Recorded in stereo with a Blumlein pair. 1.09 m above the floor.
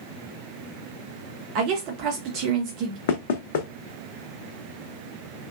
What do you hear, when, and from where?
1.6 s a woman speaking: 40° right, 0.6 m
3.1 s knocking: 55° left, 0.6 m